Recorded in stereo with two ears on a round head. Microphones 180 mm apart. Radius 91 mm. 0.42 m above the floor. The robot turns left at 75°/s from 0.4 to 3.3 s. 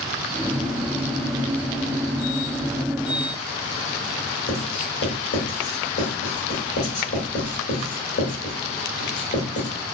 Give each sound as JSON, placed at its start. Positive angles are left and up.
{"t": 4.5, "sound": "writing", "side_deg": 55, "distance_m": 1.3}